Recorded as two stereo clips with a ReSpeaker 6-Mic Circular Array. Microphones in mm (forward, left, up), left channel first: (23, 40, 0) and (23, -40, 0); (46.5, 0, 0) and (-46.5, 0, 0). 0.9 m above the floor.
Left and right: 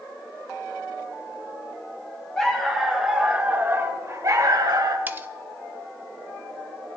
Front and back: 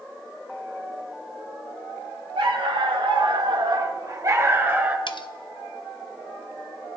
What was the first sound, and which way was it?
A dog barking, 170° left.